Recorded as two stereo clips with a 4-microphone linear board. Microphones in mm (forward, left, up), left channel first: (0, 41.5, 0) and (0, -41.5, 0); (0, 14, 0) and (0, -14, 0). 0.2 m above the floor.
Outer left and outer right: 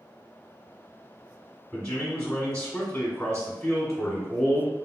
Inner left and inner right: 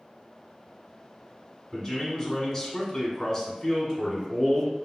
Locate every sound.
1.7 s a man speaking: 10° left (ahead or behind), 1.3 m